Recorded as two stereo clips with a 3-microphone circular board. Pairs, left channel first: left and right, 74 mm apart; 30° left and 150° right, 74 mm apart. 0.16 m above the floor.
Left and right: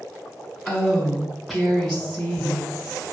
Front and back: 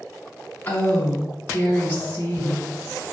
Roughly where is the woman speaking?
Ahead.